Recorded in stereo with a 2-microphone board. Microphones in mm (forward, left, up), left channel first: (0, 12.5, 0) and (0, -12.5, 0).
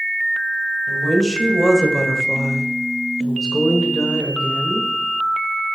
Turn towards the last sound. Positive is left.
turn(degrees=25)  # may be behind; listen again after turning